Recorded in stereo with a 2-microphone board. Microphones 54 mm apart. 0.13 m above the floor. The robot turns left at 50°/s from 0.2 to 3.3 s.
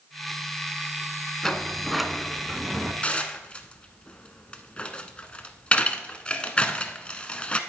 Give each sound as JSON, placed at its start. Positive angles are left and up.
{"t": 1.4, "sound": "a sliding door", "side_deg": 10, "distance_m": 0.8}
{"t": 3.0, "sound": "dishes clattering", "side_deg": 25, "distance_m": 0.9}